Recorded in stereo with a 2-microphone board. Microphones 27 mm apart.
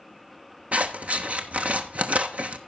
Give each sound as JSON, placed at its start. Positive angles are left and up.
{"t": 0.7, "sound": "scissors", "side_deg": -70, "distance_m": 1.0}